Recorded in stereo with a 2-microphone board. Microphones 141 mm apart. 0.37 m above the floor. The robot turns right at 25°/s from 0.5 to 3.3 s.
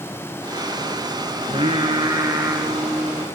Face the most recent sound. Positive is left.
turn(degrees=0)